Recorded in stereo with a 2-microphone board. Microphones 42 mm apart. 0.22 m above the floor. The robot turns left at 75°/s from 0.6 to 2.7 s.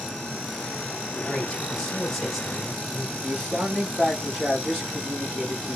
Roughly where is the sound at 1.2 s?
Left.